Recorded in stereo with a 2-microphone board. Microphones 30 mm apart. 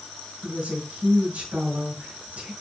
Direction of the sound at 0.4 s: 70° right (ahead or behind).